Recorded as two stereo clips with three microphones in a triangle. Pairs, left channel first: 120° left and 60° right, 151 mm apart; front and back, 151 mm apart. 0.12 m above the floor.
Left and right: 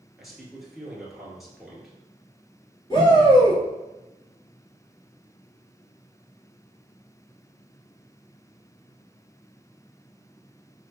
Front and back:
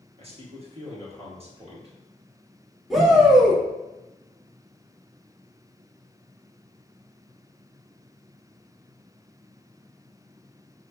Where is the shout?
90° left, 1.9 m.